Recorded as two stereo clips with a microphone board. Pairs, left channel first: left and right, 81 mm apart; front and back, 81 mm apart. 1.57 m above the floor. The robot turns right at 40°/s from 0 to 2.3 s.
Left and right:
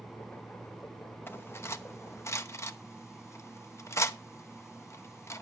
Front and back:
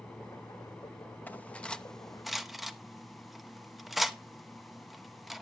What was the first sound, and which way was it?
Cutlery clinking, 55° left.